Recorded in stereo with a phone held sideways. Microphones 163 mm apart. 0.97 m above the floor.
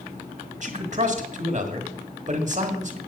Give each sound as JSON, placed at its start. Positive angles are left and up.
{"t": 0.6, "sound": "a man speaking", "side_deg": -50, "distance_m": 1.5}